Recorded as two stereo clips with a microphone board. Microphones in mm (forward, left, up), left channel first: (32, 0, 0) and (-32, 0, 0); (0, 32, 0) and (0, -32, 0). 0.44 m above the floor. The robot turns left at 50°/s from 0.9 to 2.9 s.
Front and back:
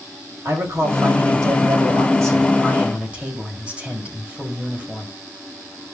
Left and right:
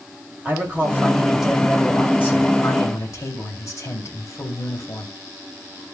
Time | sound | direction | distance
0.5 | a man speaking | 145° right | 2 m